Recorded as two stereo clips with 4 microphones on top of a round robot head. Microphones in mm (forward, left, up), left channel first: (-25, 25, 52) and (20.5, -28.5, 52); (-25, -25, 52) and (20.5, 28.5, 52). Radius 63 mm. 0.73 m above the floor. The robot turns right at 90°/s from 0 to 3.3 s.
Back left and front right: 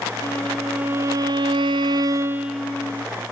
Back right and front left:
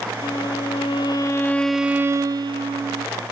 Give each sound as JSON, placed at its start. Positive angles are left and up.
{"t": 0.2, "sound": "a violin", "azimuth_deg": -175, "distance_m": 0.6}